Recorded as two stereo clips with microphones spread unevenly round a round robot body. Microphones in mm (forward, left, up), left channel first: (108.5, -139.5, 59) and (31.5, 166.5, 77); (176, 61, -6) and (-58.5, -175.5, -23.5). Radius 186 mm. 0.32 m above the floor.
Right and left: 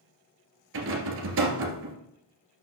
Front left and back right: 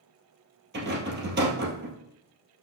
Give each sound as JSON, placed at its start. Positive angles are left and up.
{"t": 0.7, "sound": "a rattle", "azimuth_deg": 160, "distance_m": 1.8}